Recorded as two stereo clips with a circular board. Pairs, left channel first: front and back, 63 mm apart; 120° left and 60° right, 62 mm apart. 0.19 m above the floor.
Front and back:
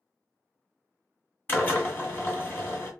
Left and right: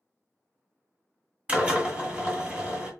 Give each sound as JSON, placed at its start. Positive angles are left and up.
{"t": 1.5, "sound": "a drill", "azimuth_deg": -15, "distance_m": 1.8}